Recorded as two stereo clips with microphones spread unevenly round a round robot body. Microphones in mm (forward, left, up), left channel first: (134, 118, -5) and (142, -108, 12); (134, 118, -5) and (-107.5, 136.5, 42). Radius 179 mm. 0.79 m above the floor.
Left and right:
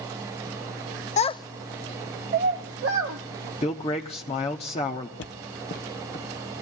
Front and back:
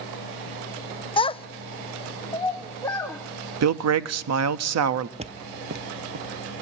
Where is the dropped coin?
No dropped coin in this recording.